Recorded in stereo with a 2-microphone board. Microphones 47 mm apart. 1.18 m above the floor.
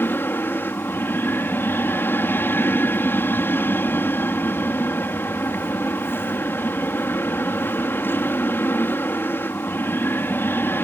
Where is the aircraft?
50° left (ahead or behind).